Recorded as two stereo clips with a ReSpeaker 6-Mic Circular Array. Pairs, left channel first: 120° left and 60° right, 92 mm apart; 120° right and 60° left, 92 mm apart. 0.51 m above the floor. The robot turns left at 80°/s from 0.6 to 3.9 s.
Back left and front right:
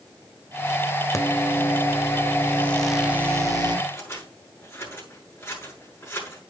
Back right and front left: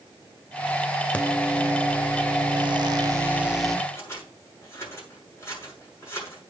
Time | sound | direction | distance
1.1 | a microwave | 170° left | 1.4 m
3.9 | scissors | 175° right | 8 m